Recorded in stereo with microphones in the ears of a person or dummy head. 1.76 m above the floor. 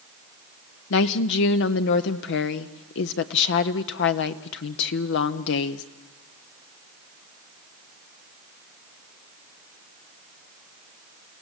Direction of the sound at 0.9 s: 75° left (ahead or behind).